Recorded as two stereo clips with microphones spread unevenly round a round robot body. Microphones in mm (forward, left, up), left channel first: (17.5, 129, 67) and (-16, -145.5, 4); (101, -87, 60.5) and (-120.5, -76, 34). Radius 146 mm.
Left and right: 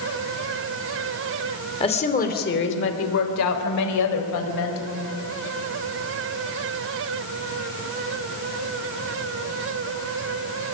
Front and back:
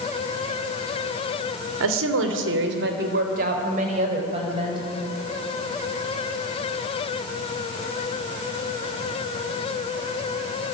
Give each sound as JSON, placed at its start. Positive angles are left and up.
{"t": 1.8, "sound": "a woman speaking", "azimuth_deg": 160, "distance_m": 3.0}